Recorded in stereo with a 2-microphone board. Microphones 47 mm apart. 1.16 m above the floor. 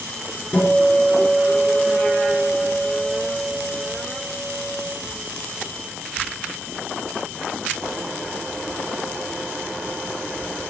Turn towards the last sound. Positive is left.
turn(degrees=25)  # may be behind; listen again after turning